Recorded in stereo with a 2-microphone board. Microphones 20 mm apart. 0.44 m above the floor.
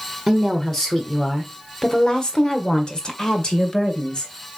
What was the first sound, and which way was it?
A woman speaking, 10° left (ahead or behind).